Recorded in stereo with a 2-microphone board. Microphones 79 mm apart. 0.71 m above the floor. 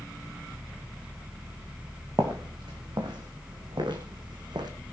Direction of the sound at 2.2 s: 65° right (ahead or behind).